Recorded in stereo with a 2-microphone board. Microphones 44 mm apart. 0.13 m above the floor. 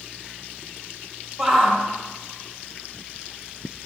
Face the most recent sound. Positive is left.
turn(degrees=0)  # may be behind; listen again after turning